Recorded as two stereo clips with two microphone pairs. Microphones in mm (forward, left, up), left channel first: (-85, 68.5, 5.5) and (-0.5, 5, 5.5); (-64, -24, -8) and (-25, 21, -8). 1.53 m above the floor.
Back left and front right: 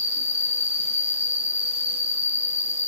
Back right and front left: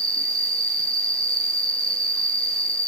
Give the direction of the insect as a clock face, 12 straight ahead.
11 o'clock.